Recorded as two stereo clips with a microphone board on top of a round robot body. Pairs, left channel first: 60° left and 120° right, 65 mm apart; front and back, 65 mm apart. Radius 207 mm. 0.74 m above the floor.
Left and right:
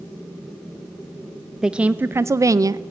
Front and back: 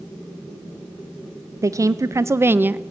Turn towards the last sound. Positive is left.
turn(degrees=-120)